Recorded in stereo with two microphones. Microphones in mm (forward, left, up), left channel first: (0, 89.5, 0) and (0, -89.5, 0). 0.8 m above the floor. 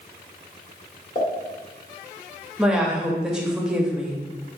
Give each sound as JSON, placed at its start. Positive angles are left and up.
{"t": 1.1, "sound": "a pop", "side_deg": 45, "distance_m": 1.5}
{"t": 2.6, "sound": "a woman speaking", "side_deg": -5, "distance_m": 0.8}